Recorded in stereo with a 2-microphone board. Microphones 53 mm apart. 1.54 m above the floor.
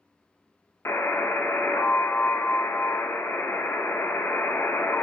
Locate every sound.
0.8 s a buzzer: 45° left (ahead or behind), 0.5 m